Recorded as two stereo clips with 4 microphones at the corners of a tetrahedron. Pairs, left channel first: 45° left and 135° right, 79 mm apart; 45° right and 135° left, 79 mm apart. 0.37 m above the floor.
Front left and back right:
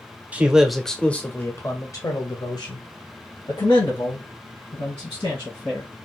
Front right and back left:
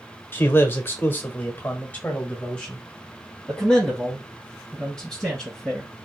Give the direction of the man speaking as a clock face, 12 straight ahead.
3 o'clock.